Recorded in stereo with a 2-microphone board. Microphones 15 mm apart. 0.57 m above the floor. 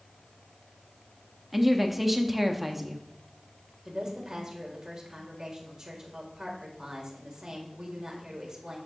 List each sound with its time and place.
1.5 s a woman speaking: 10° right (ahead or behind), 0.6 m
3.9 s a woman speaking: 35° right (ahead or behind), 1.5 m